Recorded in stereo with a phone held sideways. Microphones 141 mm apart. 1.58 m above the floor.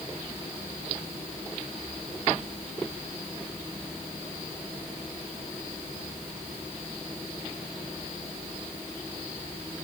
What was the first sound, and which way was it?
Only background noise.